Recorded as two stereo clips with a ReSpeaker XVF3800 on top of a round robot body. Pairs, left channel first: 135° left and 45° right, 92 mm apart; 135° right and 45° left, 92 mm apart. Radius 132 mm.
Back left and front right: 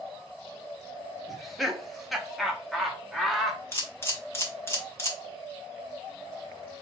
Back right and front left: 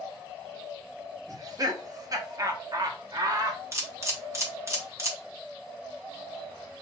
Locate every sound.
1.3 s laughter: 45° left, 1.5 m
3.7 s a camera shutter: 85° left, 1.9 m